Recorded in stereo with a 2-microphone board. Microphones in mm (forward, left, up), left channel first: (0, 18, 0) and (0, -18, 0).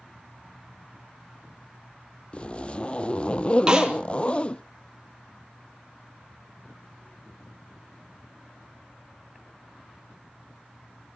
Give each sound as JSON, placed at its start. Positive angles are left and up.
{"t": 2.3, "sound": "a zipper", "side_deg": 30, "distance_m": 0.7}
{"t": 3.7, "sound": "a snare drum", "side_deg": -20, "distance_m": 3.5}